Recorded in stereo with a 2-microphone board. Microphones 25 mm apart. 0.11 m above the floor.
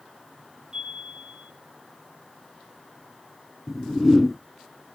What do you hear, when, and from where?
0.7 s a chime: 35° right (ahead or behind), 6.5 m
3.7 s a whoosh: 5° right (ahead or behind), 1.8 m